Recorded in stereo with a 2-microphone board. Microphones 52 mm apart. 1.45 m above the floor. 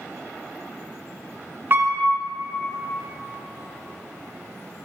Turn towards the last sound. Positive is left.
turn(degrees=-40)  # may be behind; listen again after turning